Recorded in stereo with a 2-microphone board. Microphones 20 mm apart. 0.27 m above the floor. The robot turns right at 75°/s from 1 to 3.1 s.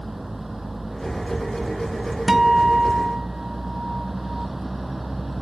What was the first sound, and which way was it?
A vehicle, 170° right.